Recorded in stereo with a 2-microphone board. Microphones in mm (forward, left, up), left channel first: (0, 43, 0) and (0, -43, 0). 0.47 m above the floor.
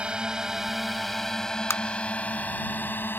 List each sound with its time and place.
0.0 s a drone: 10° right (ahead or behind); by 3.2 s 25° left (ahead or behind)
1.7 s tapping: 35° left (ahead or behind)